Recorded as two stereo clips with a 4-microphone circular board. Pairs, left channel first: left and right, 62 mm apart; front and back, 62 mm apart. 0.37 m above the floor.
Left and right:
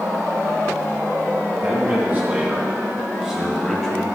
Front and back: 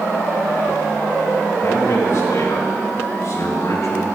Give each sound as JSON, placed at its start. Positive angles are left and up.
{"t": 1.6, "sound": "a man speaking", "azimuth_deg": -35, "distance_m": 3.5}